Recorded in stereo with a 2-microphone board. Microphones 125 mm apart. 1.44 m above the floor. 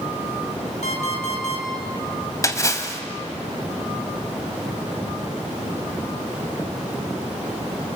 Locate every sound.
0.8 s an alarm clock: 70° left (ahead or behind), 4 m
2.4 s a splash: 25° left (ahead or behind), 2 m